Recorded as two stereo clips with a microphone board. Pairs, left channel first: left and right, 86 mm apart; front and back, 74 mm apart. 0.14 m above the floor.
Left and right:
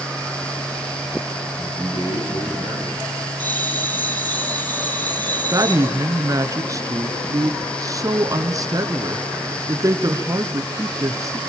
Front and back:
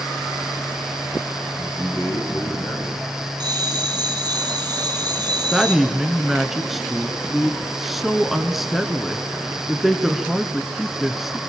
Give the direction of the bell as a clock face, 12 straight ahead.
7 o'clock.